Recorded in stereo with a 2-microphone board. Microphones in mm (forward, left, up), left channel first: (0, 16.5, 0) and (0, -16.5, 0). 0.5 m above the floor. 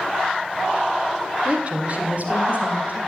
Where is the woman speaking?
35° right (ahead or behind), 1.8 m; by 3.0 s 50° right (ahead or behind), 3.5 m.